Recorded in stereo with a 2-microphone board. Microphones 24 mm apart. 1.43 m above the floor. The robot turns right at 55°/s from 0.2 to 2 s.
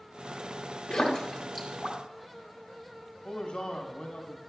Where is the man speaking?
45° left (ahead or behind), 1.3 m.